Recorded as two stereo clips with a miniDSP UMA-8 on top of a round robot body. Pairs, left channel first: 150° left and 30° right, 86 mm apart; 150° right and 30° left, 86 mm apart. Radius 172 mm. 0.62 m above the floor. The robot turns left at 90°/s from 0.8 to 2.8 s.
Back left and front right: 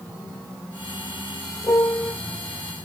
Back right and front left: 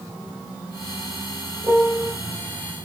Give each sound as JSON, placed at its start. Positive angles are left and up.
{"t": 1.6, "sound": "a piano", "azimuth_deg": 95, "distance_m": 2.0}